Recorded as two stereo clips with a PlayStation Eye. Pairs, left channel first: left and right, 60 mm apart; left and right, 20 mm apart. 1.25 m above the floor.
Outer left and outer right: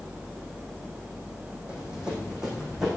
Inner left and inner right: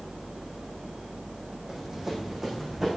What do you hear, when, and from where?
1.7 s running footsteps: 15° right (ahead or behind), 4 m; by 2.9 s 10° right (ahead or behind), 5 m